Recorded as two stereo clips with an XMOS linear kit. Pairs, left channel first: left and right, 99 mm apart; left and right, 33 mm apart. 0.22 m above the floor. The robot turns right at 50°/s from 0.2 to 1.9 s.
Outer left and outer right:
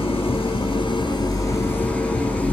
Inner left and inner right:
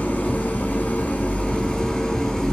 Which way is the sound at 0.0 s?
80° left.